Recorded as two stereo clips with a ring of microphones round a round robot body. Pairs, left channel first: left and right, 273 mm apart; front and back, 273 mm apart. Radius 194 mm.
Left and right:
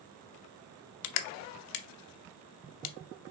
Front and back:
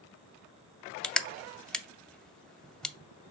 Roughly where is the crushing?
Left.